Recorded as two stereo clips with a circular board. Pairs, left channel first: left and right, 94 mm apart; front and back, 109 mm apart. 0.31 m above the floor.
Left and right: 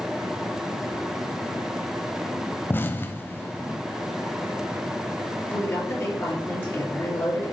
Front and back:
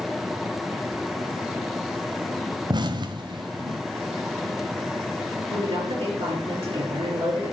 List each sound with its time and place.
2.7 s an explosion: 150° left, 0.7 m
5.5 s a woman speaking: 155° left, 4 m